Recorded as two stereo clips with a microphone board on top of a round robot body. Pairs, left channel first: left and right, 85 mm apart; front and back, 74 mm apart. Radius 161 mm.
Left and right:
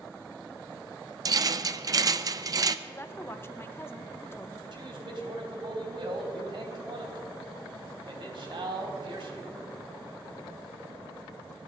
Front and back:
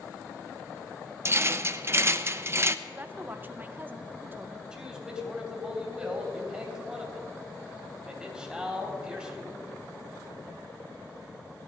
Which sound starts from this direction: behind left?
A woman speaking, at 2.9 s.